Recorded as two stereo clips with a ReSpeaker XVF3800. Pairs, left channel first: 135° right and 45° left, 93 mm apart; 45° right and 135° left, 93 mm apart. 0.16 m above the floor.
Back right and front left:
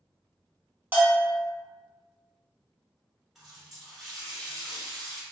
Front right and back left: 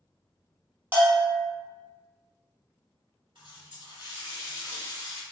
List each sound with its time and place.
0.9 s a bell: 90° left, 0.9 m
3.4 s a running tap: 130° left, 1.7 m